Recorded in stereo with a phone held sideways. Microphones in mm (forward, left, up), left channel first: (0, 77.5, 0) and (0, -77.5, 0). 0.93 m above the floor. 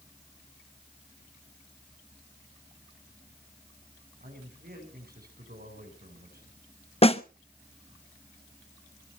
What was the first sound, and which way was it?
A man speaking, 80° right.